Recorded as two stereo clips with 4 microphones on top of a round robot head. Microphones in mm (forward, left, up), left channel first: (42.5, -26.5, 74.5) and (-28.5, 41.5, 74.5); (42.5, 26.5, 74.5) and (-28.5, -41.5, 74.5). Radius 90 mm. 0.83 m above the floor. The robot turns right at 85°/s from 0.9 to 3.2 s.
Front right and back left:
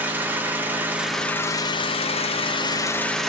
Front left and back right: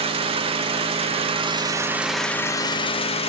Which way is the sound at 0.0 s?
155° right.